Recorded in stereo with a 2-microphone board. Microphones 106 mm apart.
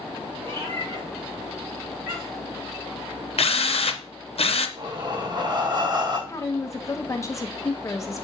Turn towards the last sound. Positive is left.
turn(degrees=30)  # may be behind; listen again after turning